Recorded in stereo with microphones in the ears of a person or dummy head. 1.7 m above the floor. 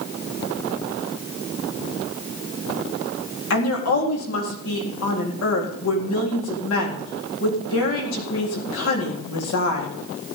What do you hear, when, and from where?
3.5 s a woman speaking: 85° left, 4 m